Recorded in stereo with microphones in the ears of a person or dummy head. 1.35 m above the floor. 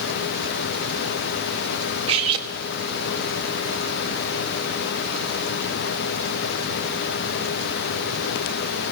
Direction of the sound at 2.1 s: 35° right (ahead or behind).